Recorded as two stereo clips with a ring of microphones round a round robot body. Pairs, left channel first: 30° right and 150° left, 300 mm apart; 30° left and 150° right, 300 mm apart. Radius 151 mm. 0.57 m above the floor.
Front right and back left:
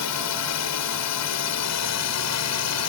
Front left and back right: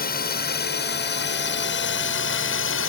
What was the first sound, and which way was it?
A drone, 25° right.